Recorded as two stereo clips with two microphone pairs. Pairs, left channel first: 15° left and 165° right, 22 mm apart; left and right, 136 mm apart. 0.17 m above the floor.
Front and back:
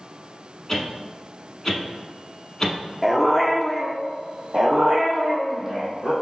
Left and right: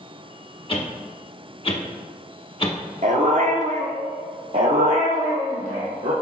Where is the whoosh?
80° left, 0.8 m.